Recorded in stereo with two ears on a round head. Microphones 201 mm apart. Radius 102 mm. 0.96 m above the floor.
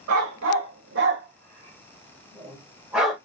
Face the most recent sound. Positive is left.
turn(degrees=0)  # may be behind; listen again after turning